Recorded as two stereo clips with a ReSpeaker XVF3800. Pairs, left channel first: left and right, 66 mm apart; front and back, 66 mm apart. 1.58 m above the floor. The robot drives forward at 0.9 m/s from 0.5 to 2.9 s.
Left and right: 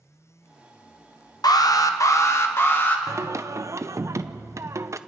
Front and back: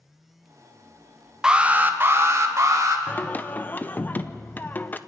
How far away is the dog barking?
I don't hear a dog barking.